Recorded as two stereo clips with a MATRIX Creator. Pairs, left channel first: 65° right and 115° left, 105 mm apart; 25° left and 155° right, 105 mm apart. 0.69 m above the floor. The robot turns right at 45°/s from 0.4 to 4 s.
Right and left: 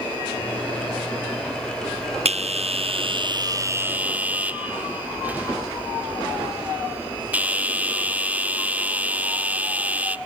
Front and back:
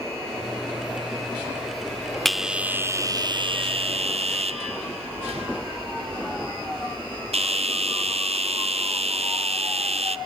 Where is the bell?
110° left, 0.6 m; by 10.2 s 170° right, 0.6 m.